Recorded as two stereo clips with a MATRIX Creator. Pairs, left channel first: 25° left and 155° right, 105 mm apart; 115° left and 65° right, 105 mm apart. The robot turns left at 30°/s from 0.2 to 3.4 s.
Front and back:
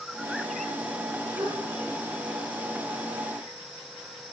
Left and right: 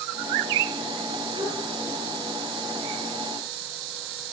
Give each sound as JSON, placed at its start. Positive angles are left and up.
{"t": 1.4, "sound": "a gasp", "azimuth_deg": -110, "distance_m": 5.0}